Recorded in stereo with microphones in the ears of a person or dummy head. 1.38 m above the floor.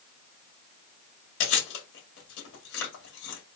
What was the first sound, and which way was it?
Chewing, 70° left (ahead or behind).